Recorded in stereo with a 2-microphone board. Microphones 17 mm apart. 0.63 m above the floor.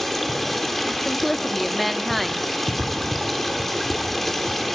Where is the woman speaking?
Centre (ahead or behind), 0.6 m.